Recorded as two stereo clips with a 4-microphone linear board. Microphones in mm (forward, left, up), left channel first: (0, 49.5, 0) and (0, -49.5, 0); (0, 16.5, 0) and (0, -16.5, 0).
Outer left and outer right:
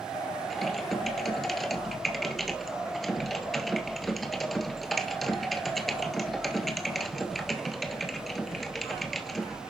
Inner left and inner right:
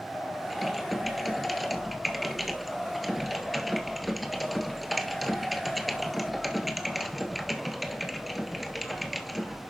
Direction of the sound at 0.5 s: Centre (ahead or behind).